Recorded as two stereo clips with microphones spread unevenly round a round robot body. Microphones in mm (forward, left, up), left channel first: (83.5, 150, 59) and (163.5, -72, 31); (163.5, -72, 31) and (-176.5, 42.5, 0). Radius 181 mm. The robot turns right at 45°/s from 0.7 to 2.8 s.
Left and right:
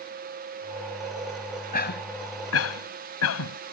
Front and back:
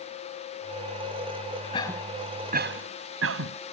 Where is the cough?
55° left; by 3.6 s 105° left.